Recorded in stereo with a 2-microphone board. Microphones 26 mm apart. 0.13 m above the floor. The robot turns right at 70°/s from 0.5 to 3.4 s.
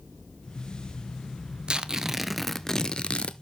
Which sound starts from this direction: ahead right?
Tearing paper, at 1.7 s.